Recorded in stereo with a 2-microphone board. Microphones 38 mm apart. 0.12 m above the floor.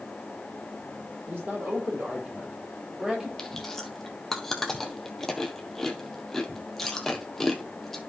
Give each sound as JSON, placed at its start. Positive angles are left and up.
{"t": 1.3, "sound": "a man speaking", "side_deg": -55, "distance_m": 4.5}
{"t": 3.4, "sound": "chewing", "side_deg": 10, "distance_m": 1.4}